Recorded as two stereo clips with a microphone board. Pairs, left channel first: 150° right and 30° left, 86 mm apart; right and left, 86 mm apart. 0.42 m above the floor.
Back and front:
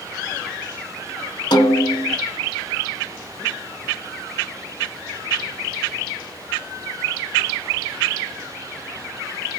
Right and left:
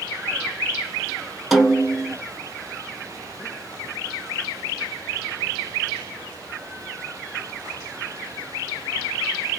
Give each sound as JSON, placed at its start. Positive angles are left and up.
{"t": 1.5, "sound": "a snare drum", "azimuth_deg": 180, "distance_m": 1.1}